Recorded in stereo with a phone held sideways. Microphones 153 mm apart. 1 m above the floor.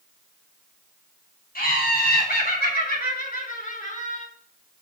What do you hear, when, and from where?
1.6 s laughter: 80° left, 4.5 m; by 4.3 s 55° left (ahead or behind), 3.5 m